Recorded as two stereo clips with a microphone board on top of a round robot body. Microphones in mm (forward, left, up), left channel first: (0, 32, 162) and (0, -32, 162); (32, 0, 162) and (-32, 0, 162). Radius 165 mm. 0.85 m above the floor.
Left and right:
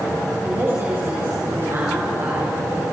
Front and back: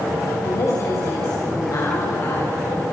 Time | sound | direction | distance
0.4 | a woman speaking | 40° right | 6.5 m